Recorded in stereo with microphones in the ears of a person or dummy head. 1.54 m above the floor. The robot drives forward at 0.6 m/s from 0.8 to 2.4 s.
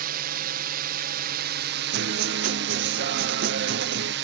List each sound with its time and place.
0.0 s a drone: 55° right (ahead or behind); by 4.2 s 60° right (ahead or behind)
1.9 s a guitar: 60° right (ahead or behind); by 4.1 s 50° right (ahead or behind)